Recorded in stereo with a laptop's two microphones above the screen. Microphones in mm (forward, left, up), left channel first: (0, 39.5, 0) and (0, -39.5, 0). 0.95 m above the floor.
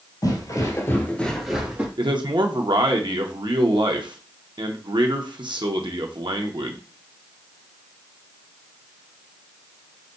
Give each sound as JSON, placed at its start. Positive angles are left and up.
{"t": 0.2, "sound": "footsteps", "side_deg": 50, "distance_m": 1.4}
{"t": 2.0, "sound": "a man speaking", "side_deg": -70, "distance_m": 0.9}